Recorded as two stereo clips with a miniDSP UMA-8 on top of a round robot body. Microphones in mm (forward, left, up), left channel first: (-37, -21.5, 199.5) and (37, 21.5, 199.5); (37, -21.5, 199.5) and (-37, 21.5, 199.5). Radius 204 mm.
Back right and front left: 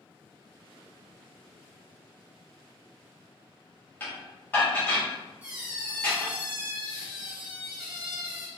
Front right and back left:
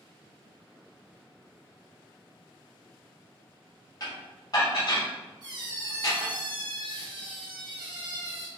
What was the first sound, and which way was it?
Dishes clattering, 80° right.